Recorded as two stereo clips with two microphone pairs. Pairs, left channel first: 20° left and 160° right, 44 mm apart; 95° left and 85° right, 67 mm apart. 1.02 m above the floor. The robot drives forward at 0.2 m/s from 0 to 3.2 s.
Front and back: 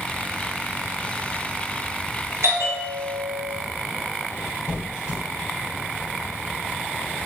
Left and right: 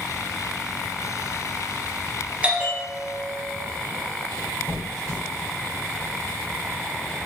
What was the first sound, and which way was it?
A bell, 155° right.